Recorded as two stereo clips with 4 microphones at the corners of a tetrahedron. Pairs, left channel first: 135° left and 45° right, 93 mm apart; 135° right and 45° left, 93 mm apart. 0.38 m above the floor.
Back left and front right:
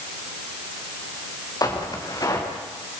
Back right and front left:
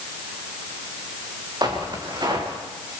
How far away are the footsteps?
About 5 m.